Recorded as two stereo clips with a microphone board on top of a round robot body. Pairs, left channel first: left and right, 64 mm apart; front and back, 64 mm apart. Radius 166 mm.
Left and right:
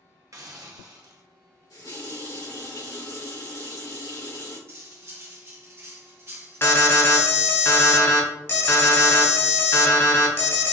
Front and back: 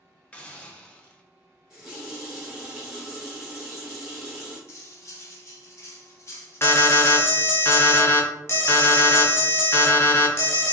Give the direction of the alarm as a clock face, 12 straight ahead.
10 o'clock.